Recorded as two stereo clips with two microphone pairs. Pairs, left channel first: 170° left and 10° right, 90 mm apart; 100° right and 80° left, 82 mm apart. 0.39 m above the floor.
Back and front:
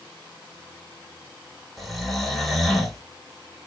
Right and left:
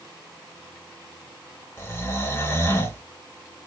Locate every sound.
1.8 s snoring: 105° right, 0.8 m